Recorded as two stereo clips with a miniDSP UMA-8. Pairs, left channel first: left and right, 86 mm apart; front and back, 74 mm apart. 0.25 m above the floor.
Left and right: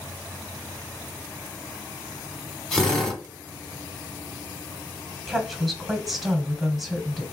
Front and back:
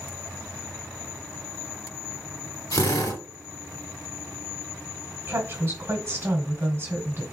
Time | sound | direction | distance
2.7 | a drill | 10° left | 0.9 m
5.3 | a woman speaking | straight behind | 1.1 m